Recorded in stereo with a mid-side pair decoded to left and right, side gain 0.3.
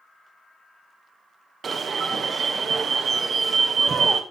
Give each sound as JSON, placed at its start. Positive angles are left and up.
{"t": 1.6, "sound": "an alarm", "azimuth_deg": -60, "distance_m": 2.0}